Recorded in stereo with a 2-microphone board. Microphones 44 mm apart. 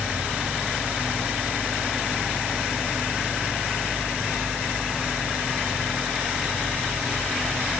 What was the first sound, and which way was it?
Only background noise.